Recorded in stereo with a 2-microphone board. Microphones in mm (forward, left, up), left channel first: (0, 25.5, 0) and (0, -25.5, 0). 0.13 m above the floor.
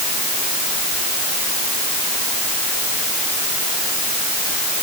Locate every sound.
Only background noise.